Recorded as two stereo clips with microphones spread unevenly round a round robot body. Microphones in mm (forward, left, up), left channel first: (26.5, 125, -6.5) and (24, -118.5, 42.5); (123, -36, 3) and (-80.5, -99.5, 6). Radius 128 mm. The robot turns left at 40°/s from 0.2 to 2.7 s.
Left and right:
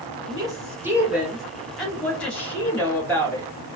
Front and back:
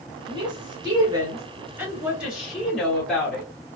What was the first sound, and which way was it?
A woman speaking, 165° right.